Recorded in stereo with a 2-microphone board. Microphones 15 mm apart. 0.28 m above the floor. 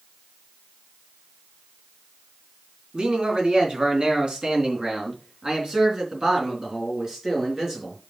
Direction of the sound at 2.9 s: 60° right (ahead or behind).